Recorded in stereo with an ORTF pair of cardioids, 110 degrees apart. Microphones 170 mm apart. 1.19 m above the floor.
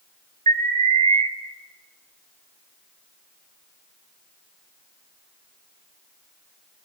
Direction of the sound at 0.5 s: 40° right.